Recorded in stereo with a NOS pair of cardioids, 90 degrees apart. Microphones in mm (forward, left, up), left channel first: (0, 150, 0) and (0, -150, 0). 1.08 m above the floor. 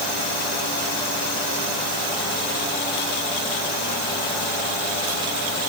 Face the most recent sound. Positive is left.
No sound to turn to.